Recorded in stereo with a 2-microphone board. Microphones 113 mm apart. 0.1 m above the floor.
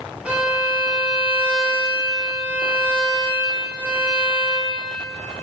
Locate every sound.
0.2 s a violin: 10° right (ahead or behind), 1.6 m